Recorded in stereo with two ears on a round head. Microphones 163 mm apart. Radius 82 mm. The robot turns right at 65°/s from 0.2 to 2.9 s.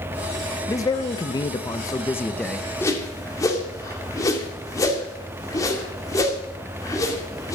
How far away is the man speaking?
About 0.7 m.